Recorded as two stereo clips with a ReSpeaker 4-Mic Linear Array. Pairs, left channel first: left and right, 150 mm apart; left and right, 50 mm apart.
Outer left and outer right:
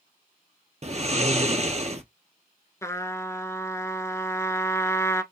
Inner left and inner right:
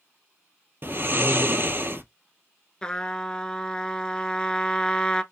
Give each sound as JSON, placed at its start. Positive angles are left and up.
{"t": 0.8, "sound": "snoring", "side_deg": -50, "distance_m": 0.9}
{"t": 2.8, "sound": "a trumpet", "side_deg": 20, "distance_m": 0.8}